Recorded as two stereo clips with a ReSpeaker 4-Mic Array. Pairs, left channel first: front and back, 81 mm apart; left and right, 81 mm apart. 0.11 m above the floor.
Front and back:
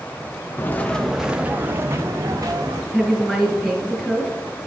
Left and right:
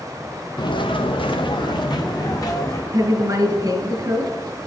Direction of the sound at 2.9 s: 80° right.